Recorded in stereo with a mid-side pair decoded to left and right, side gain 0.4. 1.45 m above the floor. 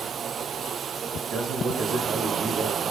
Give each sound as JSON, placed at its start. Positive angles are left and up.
{"t": 1.2, "sound": "a man speaking", "azimuth_deg": -60, "distance_m": 3.5}